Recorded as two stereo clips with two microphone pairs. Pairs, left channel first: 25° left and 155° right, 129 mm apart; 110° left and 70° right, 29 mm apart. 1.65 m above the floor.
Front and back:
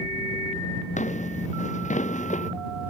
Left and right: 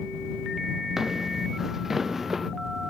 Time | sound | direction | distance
1.0 | footsteps | 10° left | ?